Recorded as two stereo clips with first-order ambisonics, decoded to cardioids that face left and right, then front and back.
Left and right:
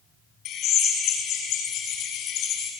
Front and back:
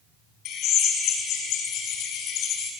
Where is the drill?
40° left, 5.5 m.